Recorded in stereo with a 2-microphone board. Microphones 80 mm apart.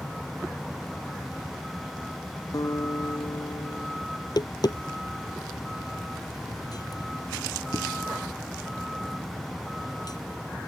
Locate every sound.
0.0 s a vehicle: centre (ahead or behind)
2.5 s a guitar: 50° left (ahead or behind)
4.2 s tapping: 55° left (ahead or behind)